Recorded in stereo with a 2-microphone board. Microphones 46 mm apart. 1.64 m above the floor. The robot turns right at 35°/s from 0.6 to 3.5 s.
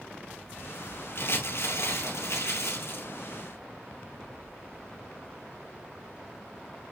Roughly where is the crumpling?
Ahead left.